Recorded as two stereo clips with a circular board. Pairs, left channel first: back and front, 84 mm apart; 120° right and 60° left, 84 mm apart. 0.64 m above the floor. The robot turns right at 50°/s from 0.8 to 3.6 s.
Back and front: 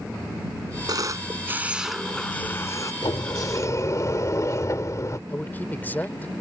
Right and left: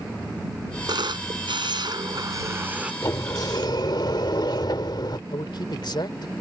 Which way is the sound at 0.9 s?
35° left.